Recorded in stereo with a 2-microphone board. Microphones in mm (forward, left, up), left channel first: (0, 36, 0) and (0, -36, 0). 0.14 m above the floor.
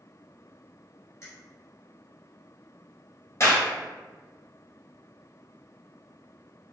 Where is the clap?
45° left (ahead or behind), 2.0 m.